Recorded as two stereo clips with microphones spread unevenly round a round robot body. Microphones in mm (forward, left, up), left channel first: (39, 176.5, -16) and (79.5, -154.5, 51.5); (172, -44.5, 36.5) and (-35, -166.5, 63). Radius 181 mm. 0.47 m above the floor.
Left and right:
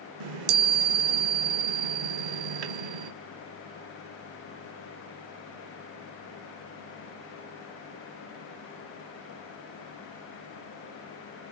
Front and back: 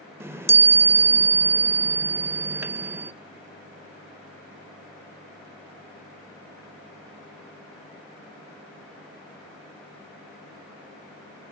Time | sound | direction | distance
0.2 | a chime | 65° right | 0.6 m